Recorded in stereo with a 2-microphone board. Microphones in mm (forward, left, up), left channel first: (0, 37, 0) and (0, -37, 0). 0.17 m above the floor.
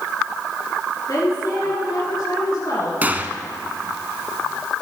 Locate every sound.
1.1 s a woman speaking: 55° left (ahead or behind), 2.5 m
3.0 s a gunshot: 25° right (ahead or behind), 0.7 m